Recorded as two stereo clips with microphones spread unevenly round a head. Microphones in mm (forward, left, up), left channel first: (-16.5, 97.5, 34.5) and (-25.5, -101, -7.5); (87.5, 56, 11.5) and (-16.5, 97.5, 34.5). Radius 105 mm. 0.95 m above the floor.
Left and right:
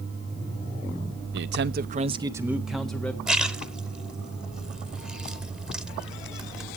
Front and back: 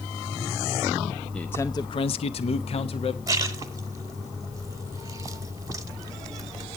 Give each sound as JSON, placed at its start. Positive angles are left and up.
{"t": 1.3, "sound": "a man speaking", "azimuth_deg": -100, "distance_m": 0.8}
{"t": 3.3, "sound": "a splash", "azimuth_deg": 165, "distance_m": 0.8}